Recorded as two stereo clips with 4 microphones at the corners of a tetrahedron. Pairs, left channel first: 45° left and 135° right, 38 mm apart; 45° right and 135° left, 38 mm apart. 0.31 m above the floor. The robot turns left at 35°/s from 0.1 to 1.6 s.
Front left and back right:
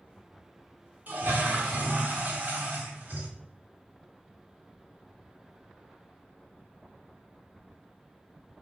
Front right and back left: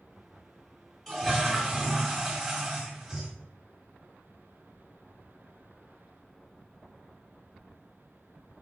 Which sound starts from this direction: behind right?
A toilet flushing, at 1.1 s.